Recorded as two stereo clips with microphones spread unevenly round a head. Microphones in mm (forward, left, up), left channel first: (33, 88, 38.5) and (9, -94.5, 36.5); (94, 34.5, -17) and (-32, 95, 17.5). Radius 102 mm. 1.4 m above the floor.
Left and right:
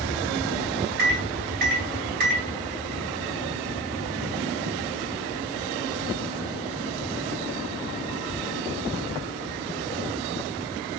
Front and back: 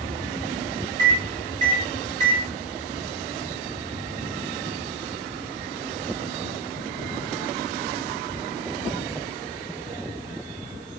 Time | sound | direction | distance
1.0 | a microwave | 140° right | 0.9 m